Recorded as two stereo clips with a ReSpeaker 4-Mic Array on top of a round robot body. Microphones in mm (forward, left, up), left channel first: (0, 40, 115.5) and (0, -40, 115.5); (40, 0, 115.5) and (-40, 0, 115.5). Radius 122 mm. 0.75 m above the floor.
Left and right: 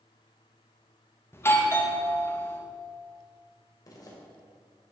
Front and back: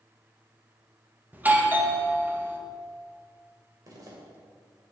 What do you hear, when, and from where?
1.3 s a doorbell: 125° left, 1.8 m
3.9 s a zipper: 135° left, 3 m